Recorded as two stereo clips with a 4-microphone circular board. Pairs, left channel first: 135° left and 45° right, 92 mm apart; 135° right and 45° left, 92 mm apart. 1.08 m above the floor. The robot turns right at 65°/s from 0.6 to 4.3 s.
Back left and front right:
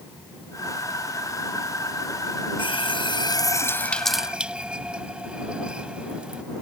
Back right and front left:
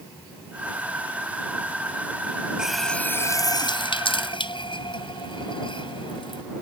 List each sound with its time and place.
2.6 s a running tap: 125° left; by 6.4 s 125° right